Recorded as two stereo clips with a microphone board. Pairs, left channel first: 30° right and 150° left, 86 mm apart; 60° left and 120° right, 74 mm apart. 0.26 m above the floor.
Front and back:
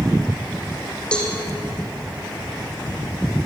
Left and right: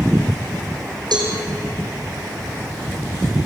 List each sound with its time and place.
1.1 s a cowbell: 110° right, 5.5 m